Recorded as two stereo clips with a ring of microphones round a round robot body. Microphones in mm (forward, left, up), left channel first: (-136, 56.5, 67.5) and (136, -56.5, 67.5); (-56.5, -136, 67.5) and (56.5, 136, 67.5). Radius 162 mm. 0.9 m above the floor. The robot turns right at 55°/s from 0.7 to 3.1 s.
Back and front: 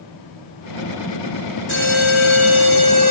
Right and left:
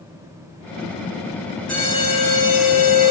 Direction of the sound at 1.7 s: 160° left.